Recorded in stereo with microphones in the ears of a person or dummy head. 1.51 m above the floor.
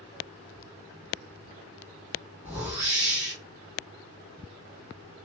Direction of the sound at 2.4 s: 5° right (ahead or behind).